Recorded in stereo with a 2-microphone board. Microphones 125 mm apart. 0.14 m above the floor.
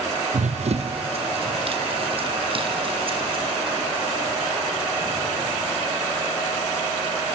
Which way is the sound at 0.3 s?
70° right (ahead or behind).